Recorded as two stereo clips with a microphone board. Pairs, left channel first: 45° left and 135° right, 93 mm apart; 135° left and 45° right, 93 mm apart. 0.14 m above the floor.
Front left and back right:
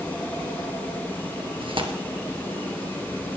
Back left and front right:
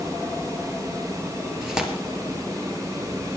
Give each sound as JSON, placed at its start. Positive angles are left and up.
{"t": 1.6, "sound": "tearing paper", "azimuth_deg": -125, "distance_m": 2.5}